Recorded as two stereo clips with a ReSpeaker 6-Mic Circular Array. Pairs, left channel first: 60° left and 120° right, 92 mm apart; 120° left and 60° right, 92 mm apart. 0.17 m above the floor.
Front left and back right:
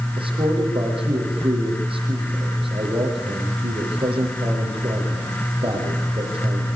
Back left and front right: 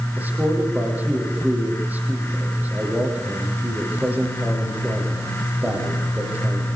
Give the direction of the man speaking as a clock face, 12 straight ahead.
4 o'clock.